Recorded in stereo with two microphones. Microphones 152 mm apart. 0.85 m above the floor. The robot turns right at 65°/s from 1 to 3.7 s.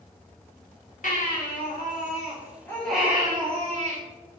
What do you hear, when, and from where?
1.0 s a baby crying: 60° left, 1.3 m; by 4.0 s 130° right, 1.3 m